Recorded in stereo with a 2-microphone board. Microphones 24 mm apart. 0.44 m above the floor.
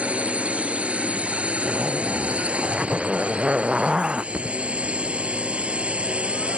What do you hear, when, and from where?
0.0 s a drone: 70° right (ahead or behind); by 6.6 s 60° right (ahead or behind)
1.6 s a zipper: 35° right (ahead or behind)
4.3 s a thud: 85° right